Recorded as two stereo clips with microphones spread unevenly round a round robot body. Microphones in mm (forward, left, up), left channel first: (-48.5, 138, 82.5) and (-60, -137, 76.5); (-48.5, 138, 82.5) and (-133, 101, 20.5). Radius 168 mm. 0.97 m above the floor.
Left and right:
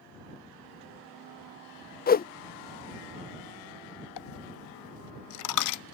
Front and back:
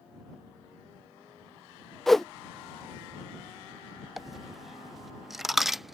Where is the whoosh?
140° left.